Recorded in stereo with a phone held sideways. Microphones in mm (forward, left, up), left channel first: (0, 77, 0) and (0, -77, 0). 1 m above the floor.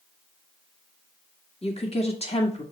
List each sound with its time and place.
1.6 s a woman speaking: 40° left (ahead or behind), 1.7 m